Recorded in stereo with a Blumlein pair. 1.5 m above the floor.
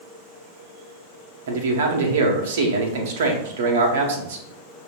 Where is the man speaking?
60° right, 0.9 m.